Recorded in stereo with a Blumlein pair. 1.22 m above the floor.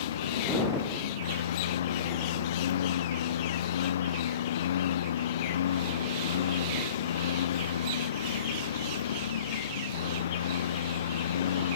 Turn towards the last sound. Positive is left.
turn(degrees=65)